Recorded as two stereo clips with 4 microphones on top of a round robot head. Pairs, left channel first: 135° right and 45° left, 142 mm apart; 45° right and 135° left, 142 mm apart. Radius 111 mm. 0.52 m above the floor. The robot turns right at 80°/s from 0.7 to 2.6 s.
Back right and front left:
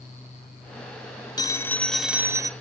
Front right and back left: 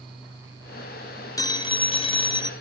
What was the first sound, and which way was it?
A phone ringing, 95° right.